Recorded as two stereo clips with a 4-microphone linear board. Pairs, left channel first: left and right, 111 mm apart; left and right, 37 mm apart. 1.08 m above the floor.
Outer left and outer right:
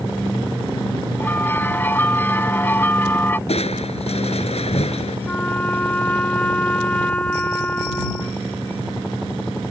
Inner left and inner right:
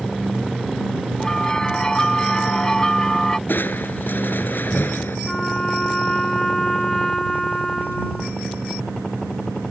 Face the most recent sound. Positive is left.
turn(degrees=15)  # may be behind; listen again after turning